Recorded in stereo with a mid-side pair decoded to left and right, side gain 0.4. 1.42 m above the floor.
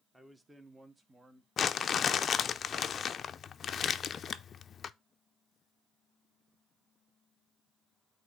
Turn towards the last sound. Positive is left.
turn(degrees=55)